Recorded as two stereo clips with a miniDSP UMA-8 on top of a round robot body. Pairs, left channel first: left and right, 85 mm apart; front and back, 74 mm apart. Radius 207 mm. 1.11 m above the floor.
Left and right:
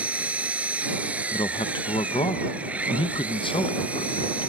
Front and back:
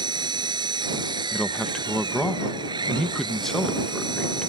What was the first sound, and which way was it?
An engine running, 165° right.